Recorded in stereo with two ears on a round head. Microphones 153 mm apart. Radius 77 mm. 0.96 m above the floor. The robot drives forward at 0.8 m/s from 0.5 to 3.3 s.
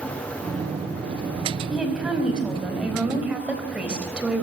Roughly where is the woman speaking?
Centre.